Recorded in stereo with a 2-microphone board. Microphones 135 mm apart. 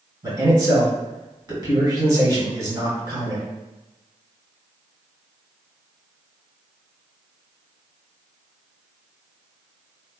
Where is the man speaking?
30° right (ahead or behind), 1.8 m.